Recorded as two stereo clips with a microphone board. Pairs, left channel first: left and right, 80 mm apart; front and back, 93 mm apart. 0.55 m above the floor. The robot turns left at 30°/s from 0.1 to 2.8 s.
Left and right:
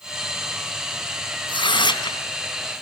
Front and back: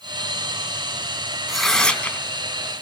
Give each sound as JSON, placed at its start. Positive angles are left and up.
{"t": 1.5, "sound": "tearing paper", "azimuth_deg": 95, "distance_m": 2.5}